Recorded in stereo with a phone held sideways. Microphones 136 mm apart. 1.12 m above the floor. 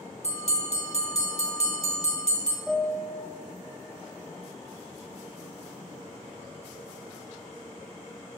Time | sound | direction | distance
0.2 | a bell | 50° left (ahead or behind) | 2 m
2.7 | a piano | centre (ahead or behind) | 1.3 m